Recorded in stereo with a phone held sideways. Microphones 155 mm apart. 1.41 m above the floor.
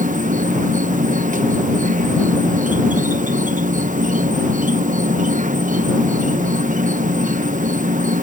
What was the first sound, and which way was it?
An insect, 55° right (ahead or behind).